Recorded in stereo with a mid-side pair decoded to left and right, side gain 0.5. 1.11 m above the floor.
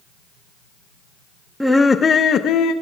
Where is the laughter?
Straight ahead, 0.8 m; by 2.7 s 75° left, 1.2 m.